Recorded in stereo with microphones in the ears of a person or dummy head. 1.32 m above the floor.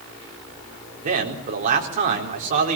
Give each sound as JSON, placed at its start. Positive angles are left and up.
{"t": 1.0, "sound": "a man speaking", "side_deg": -40, "distance_m": 4.0}